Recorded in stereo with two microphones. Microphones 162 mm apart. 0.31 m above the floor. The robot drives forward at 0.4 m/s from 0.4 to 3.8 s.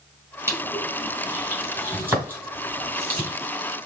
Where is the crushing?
15° right (ahead or behind), 1.9 m; by 3.3 s 10° right (ahead or behind), 3 m.